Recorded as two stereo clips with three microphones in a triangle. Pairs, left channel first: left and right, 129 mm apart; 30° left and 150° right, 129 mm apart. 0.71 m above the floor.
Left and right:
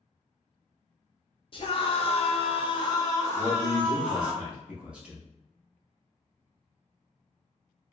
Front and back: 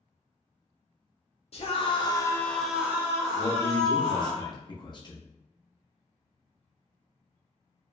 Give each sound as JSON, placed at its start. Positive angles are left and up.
{"t": 1.5, "sound": "a scream", "azimuth_deg": 50, "distance_m": 0.8}
{"t": 3.3, "sound": "a man speaking", "azimuth_deg": -15, "distance_m": 0.8}